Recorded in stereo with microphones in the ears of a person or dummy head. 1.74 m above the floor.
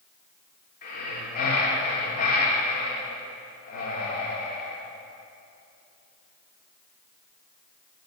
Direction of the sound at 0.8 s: 45° left (ahead or behind).